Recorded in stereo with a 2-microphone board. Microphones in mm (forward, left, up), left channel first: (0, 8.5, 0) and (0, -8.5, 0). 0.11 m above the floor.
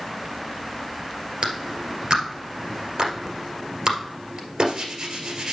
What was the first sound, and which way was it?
A clap, 55° right (ahead or behind).